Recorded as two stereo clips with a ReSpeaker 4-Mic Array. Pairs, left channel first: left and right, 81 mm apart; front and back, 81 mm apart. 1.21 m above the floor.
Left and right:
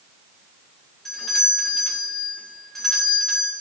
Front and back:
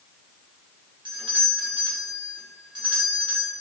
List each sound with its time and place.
1.1 s a doorbell: 175° left, 2 m